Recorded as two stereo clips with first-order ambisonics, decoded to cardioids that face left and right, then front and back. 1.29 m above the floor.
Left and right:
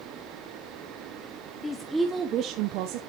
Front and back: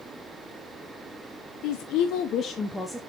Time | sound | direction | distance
1.6 | a woman speaking | 15° left | 1.1 m